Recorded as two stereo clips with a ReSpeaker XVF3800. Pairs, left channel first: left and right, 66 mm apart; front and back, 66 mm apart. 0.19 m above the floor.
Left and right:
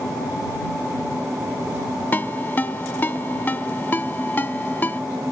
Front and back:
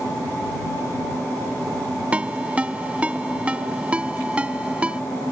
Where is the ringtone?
125° left.